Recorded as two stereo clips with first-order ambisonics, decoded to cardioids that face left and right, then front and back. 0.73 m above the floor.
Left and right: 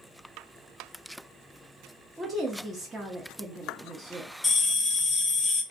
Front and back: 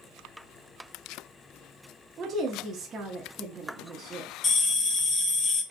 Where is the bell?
25° left, 0.6 m.